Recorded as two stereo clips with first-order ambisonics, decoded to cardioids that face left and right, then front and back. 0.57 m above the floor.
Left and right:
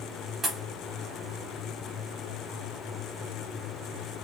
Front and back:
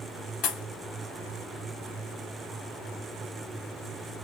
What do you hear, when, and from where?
0.4 s a pop: 25° right, 0.9 m